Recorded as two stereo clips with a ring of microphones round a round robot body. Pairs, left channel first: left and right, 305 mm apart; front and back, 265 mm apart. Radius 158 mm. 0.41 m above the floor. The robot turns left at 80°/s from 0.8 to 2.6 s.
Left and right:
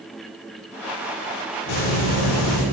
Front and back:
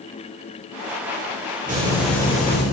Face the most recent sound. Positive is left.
turn(degrees=50)